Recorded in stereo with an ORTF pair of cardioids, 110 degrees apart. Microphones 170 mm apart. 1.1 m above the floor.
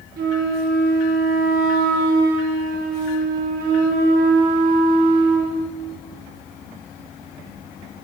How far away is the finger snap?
No finger snap in this recording.